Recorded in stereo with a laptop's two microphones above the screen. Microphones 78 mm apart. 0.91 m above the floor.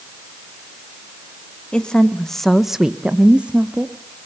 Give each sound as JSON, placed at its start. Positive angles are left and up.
{"t": 1.7, "sound": "a woman speaking", "side_deg": 10, "distance_m": 1.8}